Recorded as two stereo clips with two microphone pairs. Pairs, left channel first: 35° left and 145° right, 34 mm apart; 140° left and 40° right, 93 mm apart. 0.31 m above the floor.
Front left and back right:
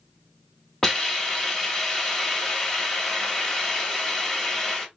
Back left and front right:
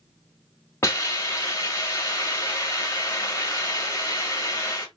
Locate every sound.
0.8 s a hiss: 100° left, 1.7 m